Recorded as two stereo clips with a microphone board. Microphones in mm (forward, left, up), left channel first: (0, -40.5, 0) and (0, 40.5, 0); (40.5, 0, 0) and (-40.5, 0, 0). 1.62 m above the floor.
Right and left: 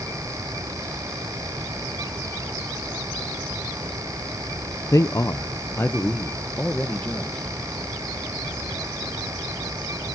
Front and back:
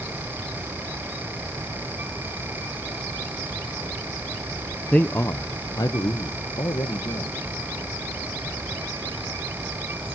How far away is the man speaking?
About 0.5 m.